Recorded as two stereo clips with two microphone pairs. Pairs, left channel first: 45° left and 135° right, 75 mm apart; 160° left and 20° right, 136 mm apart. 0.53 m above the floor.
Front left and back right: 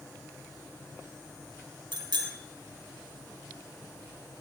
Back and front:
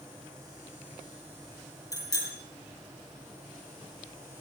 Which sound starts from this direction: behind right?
A bicycle bell, at 1.9 s.